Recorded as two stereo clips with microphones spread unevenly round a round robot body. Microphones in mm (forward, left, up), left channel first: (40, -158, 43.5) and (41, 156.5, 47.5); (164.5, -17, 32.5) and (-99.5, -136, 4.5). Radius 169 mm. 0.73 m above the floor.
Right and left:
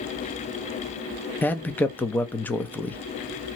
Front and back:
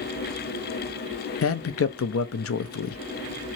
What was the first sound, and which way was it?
A man speaking, 10° right.